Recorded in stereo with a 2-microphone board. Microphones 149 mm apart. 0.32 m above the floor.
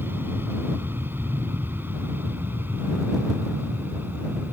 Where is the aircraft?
15° right (ahead or behind); by 4.5 s 10° right (ahead or behind).